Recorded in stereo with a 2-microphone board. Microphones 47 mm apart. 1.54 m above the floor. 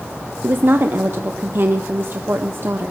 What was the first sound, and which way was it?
A woman speaking, 50° right (ahead or behind).